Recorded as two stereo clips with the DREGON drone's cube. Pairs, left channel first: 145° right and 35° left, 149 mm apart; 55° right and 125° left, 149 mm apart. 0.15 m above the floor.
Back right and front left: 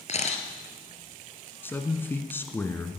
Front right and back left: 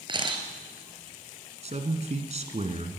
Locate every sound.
0.1 s a camera shutter: straight behind, 1.9 m
1.6 s a man speaking: 145° left, 1.7 m